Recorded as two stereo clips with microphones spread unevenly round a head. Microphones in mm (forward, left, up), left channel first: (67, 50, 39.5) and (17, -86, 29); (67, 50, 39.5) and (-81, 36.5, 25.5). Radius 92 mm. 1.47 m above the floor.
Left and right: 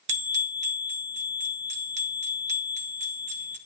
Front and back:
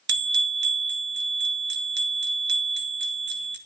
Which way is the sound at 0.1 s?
165° right.